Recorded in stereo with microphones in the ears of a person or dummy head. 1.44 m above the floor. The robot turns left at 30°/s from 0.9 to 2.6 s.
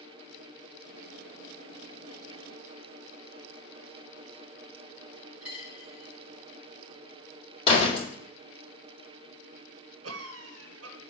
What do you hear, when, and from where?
5.4 s a dropped coin: 5° right (ahead or behind), 3 m
7.7 s a door slam: 30° left (ahead or behind), 2.5 m
10.0 s a cough: 75° right (ahead or behind), 1.1 m